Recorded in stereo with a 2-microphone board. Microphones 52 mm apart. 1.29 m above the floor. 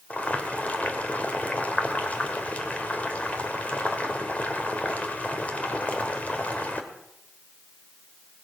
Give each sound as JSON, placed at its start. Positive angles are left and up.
{"t": 0.1, "sound": "boiling", "side_deg": 30, "distance_m": 2.0}